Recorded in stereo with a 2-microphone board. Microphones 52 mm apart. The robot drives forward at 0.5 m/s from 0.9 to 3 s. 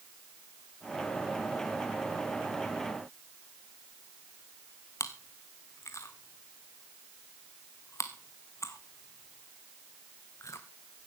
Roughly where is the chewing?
Left.